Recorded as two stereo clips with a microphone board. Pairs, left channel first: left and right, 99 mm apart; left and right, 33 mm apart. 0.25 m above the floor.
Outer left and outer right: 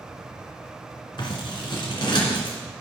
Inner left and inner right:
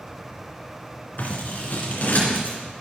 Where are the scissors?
50° left (ahead or behind), 2.5 m.